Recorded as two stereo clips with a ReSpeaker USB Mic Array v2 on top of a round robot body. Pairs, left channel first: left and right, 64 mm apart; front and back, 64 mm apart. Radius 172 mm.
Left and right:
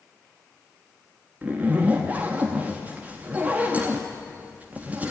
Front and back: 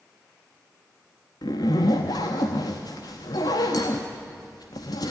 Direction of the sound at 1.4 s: 25° right.